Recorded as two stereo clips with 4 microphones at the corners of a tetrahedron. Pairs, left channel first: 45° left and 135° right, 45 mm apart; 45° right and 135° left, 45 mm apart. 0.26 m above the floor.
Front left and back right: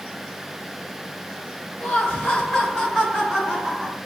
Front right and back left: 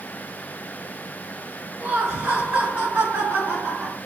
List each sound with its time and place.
1.8 s laughter: 80° left, 1.4 m; by 4.0 s 150° left, 1.3 m